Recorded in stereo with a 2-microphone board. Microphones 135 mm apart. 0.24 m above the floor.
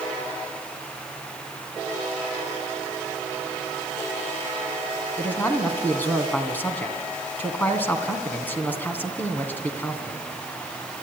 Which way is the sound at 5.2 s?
15° left (ahead or behind).